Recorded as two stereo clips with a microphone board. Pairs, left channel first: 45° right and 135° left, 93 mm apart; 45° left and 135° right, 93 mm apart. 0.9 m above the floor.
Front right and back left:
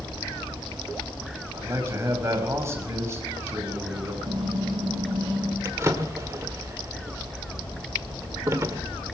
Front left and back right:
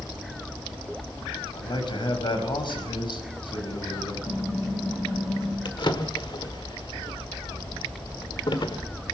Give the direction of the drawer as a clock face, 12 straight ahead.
9 o'clock.